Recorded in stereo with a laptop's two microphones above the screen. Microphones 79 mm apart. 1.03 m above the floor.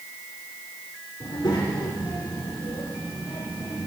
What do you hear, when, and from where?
1.2 s a child speaking: 75° left (ahead or behind), 1.4 m; by 3.9 s 80° left, 2.5 m